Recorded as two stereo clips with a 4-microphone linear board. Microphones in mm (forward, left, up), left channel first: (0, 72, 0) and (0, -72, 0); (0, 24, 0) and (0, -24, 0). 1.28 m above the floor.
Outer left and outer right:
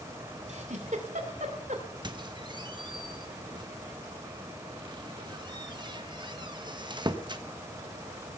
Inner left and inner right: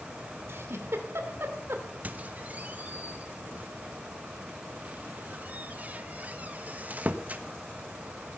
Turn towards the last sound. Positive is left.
turn(degrees=-30)  # may be behind; listen again after turning